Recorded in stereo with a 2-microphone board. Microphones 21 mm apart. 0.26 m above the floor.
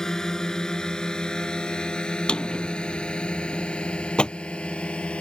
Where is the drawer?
40° left (ahead or behind).